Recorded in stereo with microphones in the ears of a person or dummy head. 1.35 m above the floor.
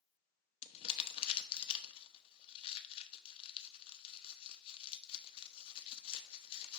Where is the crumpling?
30° left (ahead or behind), 0.8 m.